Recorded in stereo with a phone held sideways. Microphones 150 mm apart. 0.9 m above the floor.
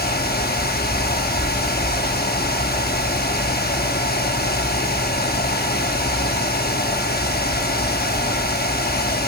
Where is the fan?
85° left, 0.9 m.